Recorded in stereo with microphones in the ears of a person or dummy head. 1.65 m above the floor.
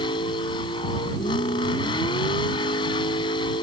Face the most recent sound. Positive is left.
turn(degrees=30)  # may be behind; listen again after turning